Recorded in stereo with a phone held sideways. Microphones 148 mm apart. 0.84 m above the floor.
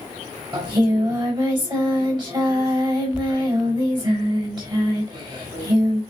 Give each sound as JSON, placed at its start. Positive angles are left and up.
{"t": 0.5, "sound": "singing", "side_deg": -30, "distance_m": 5.5}